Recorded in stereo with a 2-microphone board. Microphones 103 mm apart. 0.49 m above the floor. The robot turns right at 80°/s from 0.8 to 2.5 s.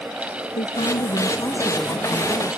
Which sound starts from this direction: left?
A woman speaking, at 0.6 s.